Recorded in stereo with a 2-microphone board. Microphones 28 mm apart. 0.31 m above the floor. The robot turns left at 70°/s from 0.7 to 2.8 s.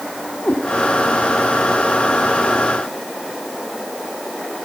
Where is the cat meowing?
60° left (ahead or behind), 5.5 m.